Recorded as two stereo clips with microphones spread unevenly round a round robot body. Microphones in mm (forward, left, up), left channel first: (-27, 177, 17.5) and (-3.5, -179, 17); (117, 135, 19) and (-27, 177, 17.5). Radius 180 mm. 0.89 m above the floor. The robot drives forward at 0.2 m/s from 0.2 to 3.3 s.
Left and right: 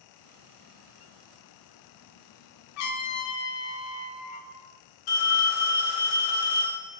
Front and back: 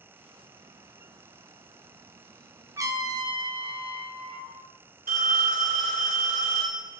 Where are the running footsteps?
No running footsteps in this recording.